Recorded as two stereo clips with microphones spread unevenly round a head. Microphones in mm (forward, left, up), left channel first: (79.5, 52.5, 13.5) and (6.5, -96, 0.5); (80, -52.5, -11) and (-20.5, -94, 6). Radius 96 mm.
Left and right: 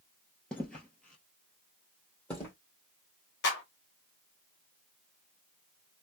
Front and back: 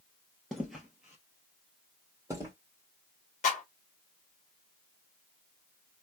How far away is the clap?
About 1.3 m.